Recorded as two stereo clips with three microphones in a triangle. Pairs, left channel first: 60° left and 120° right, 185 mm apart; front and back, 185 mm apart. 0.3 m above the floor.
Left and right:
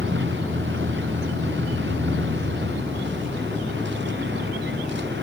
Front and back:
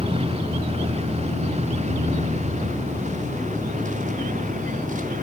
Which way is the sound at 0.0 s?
120° right.